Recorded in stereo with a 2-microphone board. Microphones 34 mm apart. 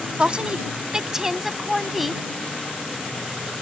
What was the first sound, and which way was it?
A woman speaking, 30° right (ahead or behind).